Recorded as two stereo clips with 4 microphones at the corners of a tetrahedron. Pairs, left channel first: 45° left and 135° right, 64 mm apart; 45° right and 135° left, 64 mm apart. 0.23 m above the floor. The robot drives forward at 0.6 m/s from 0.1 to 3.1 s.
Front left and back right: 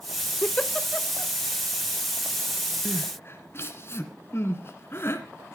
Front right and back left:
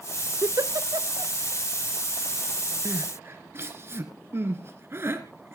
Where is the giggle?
105° left, 0.6 m; by 1.3 s 145° left, 0.9 m.